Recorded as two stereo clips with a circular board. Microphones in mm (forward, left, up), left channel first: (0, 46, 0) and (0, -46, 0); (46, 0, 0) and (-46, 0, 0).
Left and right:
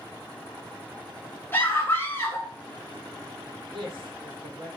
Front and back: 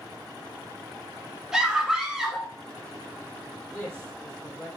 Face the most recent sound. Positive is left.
turn(degrees=-75)